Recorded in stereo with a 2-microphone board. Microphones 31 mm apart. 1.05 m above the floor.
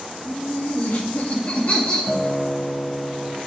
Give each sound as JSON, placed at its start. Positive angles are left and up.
{"t": 0.2, "sound": "laughter", "side_deg": 70, "distance_m": 2.5}
{"t": 2.1, "sound": "a guitar", "side_deg": 0, "distance_m": 0.9}